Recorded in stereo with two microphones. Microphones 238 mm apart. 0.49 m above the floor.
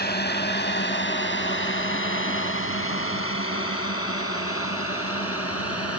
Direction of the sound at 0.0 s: 40° left (ahead or behind).